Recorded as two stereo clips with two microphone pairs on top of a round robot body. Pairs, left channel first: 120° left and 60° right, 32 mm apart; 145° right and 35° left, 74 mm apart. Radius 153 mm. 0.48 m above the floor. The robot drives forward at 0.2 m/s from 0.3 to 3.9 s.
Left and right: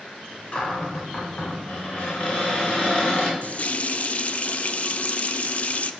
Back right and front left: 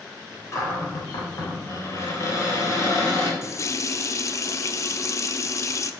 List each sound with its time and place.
0.5 s a cupboard door: 165° left, 3 m; by 3.3 s 170° left, 3.5 m
3.4 s a running tap: 165° left, 0.7 m